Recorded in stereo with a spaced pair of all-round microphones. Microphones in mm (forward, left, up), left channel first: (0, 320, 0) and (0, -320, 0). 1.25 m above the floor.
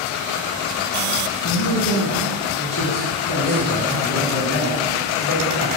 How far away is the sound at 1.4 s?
About 1.4 m.